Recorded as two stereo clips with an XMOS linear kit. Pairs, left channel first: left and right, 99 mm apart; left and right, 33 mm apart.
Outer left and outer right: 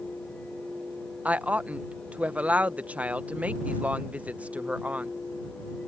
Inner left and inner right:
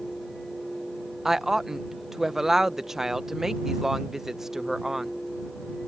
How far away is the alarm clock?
No alarm clock in this recording.